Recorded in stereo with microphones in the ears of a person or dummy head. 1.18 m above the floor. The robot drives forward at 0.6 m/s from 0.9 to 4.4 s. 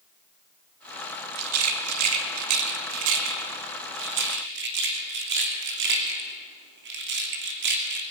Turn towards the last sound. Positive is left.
turn(degrees=-60)  # may be behind; listen again after turning